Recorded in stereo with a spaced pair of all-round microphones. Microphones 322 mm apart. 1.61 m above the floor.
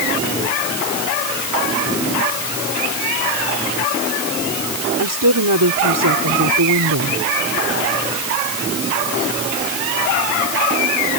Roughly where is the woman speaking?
Right.